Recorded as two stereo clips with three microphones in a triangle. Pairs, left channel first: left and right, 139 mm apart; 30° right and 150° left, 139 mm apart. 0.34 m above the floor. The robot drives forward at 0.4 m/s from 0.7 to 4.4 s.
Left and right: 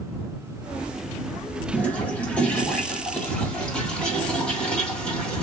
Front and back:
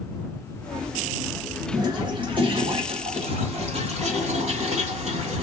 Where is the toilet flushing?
160° left, 1.3 m; by 5.4 s 170° left, 2 m.